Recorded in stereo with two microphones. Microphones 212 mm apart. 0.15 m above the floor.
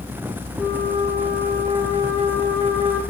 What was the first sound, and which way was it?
A flute, 15° left (ahead or behind).